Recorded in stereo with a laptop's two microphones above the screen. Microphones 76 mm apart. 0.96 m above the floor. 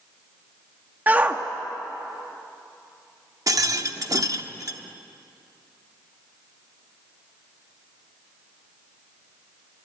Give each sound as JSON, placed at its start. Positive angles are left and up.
{"t": 1.1, "sound": "a shout", "side_deg": -25, "distance_m": 1.2}
{"t": 3.5, "sound": "a rattle", "side_deg": -55, "distance_m": 0.8}